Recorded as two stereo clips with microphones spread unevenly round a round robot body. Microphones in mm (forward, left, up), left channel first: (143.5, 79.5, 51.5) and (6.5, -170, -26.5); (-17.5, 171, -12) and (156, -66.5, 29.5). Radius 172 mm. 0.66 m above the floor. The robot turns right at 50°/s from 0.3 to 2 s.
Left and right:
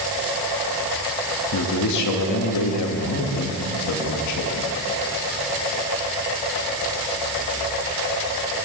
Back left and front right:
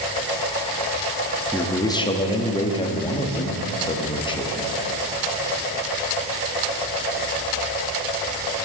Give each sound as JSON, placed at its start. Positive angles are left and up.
{"t": 1.5, "sound": "a man speaking", "azimuth_deg": 45, "distance_m": 1.0}